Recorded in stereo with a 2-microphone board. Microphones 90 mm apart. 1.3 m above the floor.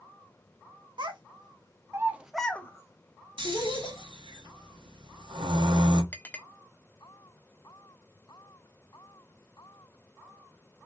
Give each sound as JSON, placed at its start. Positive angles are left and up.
{"t": 1.0, "sound": "a child speaking", "side_deg": -60, "distance_m": 1.0}
{"t": 3.4, "sound": "snoring", "side_deg": -60, "distance_m": 0.9}
{"t": 6.1, "sound": "a clink", "side_deg": 20, "distance_m": 0.6}